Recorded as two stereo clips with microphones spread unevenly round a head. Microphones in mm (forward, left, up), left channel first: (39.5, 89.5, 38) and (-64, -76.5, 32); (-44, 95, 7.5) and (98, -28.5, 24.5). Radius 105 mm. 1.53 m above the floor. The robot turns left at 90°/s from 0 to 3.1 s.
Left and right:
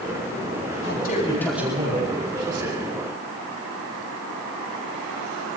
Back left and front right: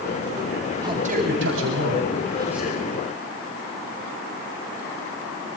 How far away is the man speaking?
About 8.5 m.